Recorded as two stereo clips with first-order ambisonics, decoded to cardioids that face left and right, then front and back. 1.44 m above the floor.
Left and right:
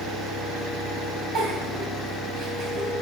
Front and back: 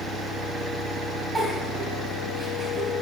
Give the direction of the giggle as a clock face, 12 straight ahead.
4 o'clock.